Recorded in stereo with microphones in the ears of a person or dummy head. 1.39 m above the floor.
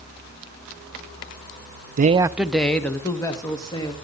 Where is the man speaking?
45° right (ahead or behind), 0.5 m; by 3.9 s 20° left (ahead or behind), 2.5 m.